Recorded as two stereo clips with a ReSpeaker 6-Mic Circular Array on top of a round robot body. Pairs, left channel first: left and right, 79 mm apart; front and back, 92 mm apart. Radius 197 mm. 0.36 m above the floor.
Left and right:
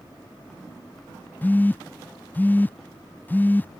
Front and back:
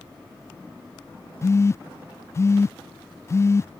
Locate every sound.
1.4 s a phone buzzing: 35° left